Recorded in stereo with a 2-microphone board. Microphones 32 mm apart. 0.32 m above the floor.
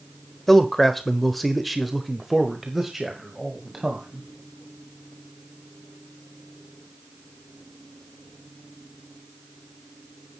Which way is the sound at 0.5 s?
10° left (ahead or behind).